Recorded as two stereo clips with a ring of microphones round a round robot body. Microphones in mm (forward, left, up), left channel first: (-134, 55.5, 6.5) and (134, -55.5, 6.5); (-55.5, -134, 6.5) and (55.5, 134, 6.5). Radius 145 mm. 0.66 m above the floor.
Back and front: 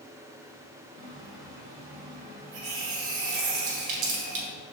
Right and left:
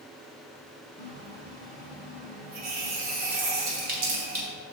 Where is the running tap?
5° left, 1.9 m.